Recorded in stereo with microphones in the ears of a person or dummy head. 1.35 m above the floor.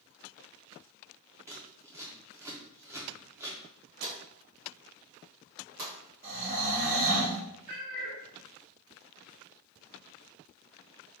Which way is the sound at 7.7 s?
65° right (ahead or behind).